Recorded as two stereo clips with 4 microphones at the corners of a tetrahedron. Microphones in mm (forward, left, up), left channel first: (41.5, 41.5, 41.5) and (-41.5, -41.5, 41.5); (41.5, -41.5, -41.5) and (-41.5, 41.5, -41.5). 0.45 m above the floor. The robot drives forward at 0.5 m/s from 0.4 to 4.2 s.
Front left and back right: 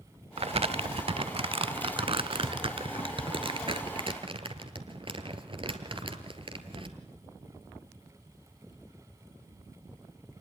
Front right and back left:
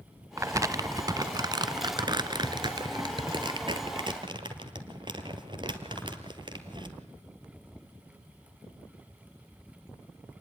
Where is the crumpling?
160° right, 0.5 m; by 7.0 s 175° right, 2.5 m.